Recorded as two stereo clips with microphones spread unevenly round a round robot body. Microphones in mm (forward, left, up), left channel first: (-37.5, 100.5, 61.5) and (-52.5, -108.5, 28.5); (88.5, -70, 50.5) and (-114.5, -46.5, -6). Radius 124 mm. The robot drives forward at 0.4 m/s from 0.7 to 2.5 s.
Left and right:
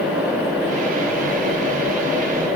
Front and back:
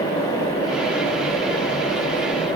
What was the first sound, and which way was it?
Only background noise.